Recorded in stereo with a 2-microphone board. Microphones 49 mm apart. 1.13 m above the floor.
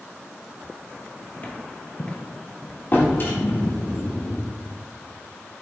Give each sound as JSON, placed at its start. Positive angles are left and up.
{"t": 1.4, "sound": "footsteps", "side_deg": 40, "distance_m": 1.5}
{"t": 2.9, "sound": "a drawer", "side_deg": 40, "distance_m": 1.8}